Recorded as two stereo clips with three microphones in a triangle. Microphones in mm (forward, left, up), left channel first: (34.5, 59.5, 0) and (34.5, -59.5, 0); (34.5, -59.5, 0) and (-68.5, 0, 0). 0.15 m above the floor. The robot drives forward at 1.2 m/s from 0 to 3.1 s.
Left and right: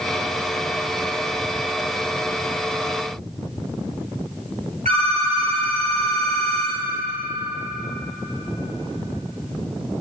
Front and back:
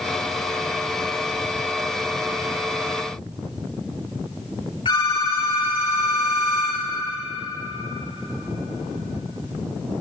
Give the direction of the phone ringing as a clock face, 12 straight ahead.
3 o'clock.